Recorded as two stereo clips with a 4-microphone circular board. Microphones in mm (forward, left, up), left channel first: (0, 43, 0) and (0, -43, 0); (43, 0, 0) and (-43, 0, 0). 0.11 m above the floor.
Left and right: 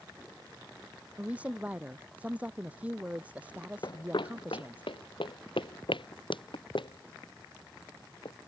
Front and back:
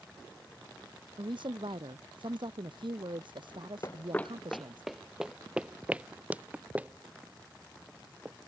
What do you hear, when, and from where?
1.2 s a woman speaking: 165° right
3.8 s running footsteps: 50° left; by 8.4 s 110° left